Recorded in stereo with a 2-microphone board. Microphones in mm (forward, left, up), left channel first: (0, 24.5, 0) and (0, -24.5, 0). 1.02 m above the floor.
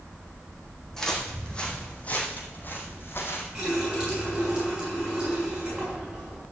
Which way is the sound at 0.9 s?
10° left (ahead or behind).